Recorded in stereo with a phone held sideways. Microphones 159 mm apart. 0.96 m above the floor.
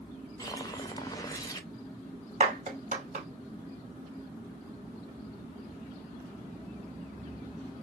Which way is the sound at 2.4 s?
50° right (ahead or behind).